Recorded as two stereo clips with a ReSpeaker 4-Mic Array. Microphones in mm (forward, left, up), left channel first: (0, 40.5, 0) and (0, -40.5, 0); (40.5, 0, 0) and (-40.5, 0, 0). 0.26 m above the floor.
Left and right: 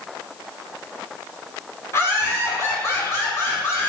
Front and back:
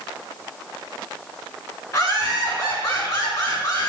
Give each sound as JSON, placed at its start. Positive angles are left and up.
{"t": 1.9, "sound": "laughter", "azimuth_deg": 40, "distance_m": 3.0}